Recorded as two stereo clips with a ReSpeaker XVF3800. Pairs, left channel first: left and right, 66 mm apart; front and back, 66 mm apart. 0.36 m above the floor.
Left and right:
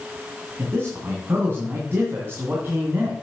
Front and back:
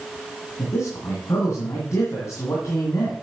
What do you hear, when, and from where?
0.6 s a man speaking: 40° right, 2.5 m